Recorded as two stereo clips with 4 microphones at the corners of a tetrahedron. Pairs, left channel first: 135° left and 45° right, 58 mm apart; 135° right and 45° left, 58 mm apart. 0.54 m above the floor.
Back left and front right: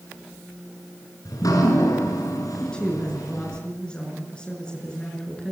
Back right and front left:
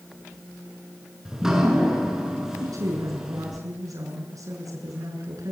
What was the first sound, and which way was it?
Dripping, 125° left.